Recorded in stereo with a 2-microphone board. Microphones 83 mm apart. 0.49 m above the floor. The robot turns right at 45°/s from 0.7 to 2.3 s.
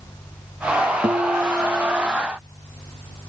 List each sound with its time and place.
1.0 s a guitar: 45° right; by 2.1 s straight ahead